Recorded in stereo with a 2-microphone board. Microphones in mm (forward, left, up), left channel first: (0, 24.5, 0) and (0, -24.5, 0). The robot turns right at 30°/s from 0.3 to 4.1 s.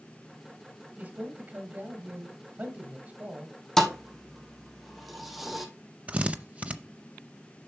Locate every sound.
1.0 s a man speaking: 120° right, 1.7 m; by 3.5 s 45° right, 1.7 m
3.8 s a thud: 10° left (ahead or behind), 1.1 m; by 5.7 s centre (ahead or behind), 1.1 m
6.1 s a drill: 25° right (ahead or behind), 0.6 m